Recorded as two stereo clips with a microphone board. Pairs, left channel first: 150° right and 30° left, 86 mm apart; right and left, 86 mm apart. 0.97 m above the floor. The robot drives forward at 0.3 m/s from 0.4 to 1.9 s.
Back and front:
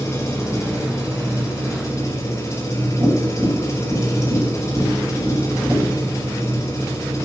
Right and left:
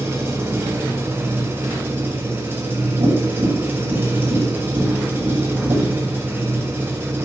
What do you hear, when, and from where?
0.0 s an engine running: 150° left, 4.5 m; by 7.3 s 155° left, 5 m
3.0 s tapping: 100° left, 6 m